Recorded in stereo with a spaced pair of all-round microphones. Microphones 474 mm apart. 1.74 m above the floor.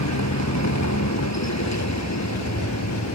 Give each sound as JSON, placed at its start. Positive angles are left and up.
{"t": 0.0, "sound": "a vehicle", "side_deg": 35}